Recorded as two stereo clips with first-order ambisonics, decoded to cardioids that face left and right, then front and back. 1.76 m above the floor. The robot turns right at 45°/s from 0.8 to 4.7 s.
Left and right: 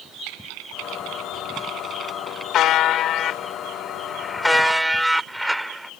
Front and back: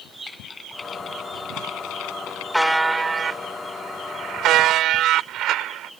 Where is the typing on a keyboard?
75° right; by 2.4 s straight ahead.